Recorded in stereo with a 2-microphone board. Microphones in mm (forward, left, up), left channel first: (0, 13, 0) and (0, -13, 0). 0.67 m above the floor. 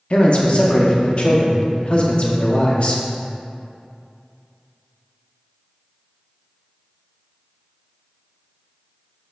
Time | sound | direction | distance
0.1 | a man speaking | 45° left (ahead or behind) | 0.7 m